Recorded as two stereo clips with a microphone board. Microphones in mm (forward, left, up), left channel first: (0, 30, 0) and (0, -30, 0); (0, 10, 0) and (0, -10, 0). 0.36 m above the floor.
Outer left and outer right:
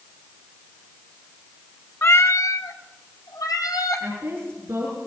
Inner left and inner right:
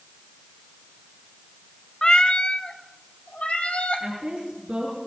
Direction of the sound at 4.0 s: 45° right (ahead or behind).